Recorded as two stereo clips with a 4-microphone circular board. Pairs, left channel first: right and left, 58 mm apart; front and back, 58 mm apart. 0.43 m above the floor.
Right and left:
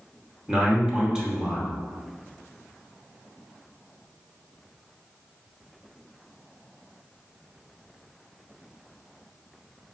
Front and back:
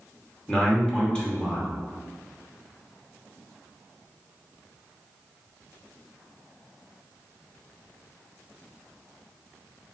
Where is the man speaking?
40° left, 0.9 m.